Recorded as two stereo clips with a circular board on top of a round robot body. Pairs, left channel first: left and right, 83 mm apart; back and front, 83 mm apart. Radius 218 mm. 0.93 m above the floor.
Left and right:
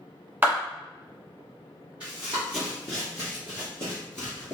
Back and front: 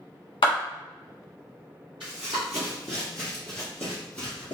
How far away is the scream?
I don't hear a scream.